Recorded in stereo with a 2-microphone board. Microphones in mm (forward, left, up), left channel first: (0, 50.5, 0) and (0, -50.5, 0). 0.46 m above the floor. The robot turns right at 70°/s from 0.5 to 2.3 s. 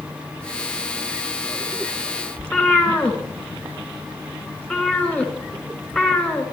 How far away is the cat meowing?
About 2 m.